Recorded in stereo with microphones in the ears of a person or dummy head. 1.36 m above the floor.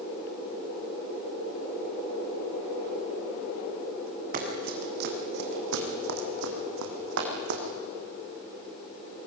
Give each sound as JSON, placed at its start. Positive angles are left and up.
{"t": 4.3, "sound": "running footsteps", "side_deg": -40, "distance_m": 4.0}